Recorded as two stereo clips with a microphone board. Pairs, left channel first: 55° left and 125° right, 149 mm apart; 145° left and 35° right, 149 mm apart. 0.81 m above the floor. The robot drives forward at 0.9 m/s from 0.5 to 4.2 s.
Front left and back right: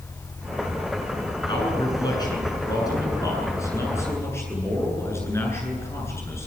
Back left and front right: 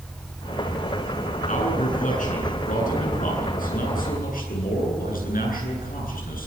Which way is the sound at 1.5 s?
115° left.